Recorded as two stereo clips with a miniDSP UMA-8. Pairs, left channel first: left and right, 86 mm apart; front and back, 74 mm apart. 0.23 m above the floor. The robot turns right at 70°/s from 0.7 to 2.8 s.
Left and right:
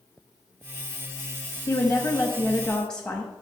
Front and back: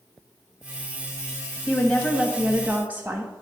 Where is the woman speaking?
80° left, 1.0 m; by 3.3 s 160° left, 1.0 m.